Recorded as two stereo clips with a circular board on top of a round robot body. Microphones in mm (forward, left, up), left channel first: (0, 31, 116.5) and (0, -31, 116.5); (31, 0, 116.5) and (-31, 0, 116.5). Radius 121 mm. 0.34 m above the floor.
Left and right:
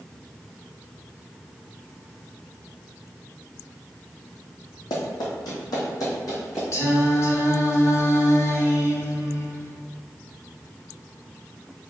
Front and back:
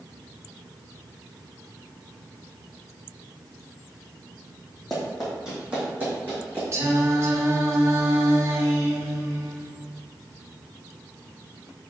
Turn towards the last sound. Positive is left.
turn(degrees=135)